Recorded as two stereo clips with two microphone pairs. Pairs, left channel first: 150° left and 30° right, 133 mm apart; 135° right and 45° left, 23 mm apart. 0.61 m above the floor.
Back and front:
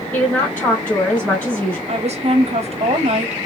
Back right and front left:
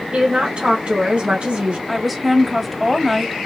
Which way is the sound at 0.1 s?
75° left.